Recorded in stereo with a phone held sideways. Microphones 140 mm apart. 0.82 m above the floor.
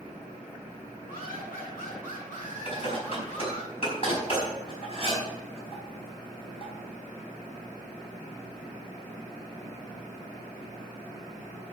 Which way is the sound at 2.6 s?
45° left (ahead or behind).